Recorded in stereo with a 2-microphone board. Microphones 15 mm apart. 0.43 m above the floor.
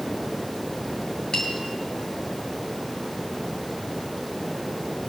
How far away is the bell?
About 8.5 m.